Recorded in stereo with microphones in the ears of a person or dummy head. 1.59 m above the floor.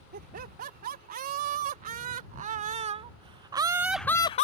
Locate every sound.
0.1 s laughter: 55° right (ahead or behind); by 4.5 s 35° left (ahead or behind)